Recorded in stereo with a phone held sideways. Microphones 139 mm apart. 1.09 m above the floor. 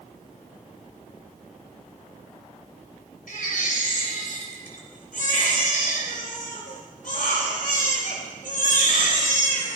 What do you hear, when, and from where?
3.3 s a baby crying: 75° left (ahead or behind), 3.5 m